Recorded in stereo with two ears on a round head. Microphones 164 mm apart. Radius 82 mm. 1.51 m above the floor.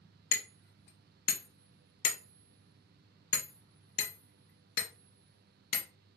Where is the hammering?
60° left (ahead or behind), 0.8 m.